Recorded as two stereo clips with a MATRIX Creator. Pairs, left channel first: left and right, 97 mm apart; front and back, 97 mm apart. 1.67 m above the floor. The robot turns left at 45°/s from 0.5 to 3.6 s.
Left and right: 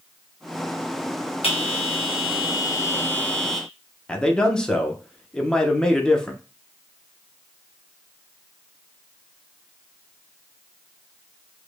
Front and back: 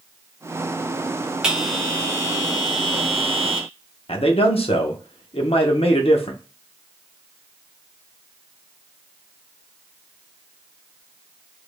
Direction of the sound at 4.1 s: 10° left.